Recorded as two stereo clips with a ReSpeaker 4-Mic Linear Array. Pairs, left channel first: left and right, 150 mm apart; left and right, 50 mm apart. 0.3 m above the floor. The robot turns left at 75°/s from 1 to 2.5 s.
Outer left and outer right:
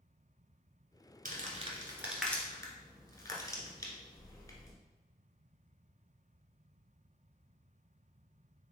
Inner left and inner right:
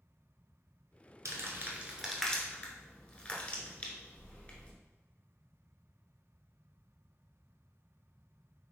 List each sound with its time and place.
1.2 s crumpling: 70° right (ahead or behind), 1.0 m; by 4.7 s 25° left (ahead or behind), 1.0 m